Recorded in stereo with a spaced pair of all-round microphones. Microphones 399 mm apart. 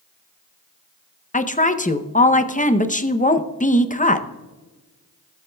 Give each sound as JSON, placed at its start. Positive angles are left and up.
{"t": 1.3, "sound": "a woman speaking", "side_deg": 20, "distance_m": 0.6}